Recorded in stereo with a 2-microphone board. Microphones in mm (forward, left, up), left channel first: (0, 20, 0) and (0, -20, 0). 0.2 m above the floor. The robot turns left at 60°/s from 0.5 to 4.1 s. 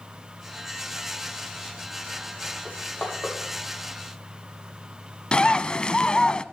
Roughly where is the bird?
Left.